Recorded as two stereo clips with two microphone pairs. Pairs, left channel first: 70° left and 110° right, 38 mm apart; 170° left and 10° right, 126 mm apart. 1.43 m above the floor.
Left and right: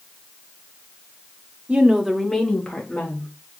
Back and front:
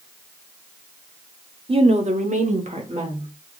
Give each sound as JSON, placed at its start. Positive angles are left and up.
{"t": 1.7, "sound": "a woman speaking", "azimuth_deg": -55, "distance_m": 0.9}